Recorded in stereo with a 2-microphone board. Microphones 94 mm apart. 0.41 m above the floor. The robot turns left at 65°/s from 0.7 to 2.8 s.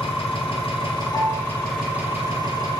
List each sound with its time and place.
0.0 s an engine running: 70° left, 2 m; by 2.8 s 65° right, 2 m
1.1 s a piano: centre (ahead or behind), 1.5 m; by 1.5 s 15° left (ahead or behind), 1.5 m